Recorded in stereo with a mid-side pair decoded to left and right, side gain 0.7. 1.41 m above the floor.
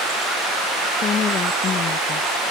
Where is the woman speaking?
40° left.